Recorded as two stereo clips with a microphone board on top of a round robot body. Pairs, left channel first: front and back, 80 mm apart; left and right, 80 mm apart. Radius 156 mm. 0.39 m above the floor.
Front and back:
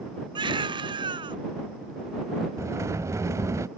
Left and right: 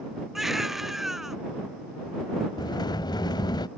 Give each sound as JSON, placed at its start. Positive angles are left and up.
{"t": 0.3, "sound": "a baby crying", "azimuth_deg": -175}
{"t": 2.6, "sound": "a sliding door", "azimuth_deg": 125}